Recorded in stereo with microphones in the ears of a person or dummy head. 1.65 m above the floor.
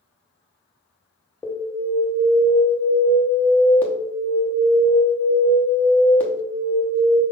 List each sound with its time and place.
1.4 s an alarm: 10° left (ahead or behind), 1.0 m